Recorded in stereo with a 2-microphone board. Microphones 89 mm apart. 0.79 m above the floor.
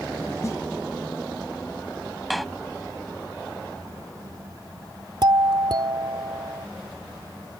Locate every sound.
0.4 s a snare drum: 35° left (ahead or behind)
2.3 s a door slam: centre (ahead or behind)
5.2 s a doorbell: 55° right (ahead or behind)